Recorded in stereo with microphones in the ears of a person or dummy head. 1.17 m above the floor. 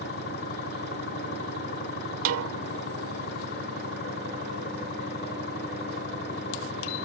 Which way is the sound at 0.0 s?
50° left (ahead or behind).